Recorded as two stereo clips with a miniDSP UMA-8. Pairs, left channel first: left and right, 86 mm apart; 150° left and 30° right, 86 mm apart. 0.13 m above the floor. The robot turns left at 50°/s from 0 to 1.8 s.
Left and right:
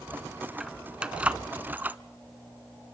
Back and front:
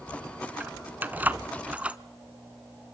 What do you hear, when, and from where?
0.6 s keys jangling: 15° right, 0.7 m; by 2.0 s 75° right, 0.7 m